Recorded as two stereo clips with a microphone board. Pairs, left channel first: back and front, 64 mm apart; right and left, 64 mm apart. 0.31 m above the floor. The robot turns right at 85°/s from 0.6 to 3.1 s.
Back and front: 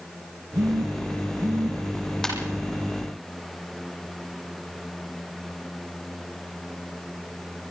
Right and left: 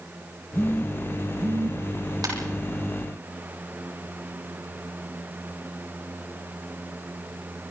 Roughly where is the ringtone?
Left.